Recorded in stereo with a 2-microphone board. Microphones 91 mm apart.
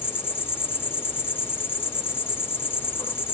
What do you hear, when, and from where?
0.0 s an insect: 20° left (ahead or behind), 1.9 m